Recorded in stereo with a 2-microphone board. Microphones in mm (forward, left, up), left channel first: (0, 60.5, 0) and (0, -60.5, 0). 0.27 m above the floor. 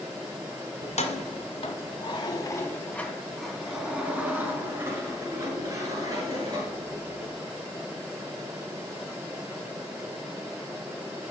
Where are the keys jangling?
70° left (ahead or behind), 1.4 m; by 7.3 s 35° right (ahead or behind), 3.5 m.